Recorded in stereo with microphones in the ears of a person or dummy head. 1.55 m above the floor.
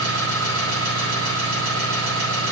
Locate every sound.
0.0 s an engine running: 80° right, 7.5 m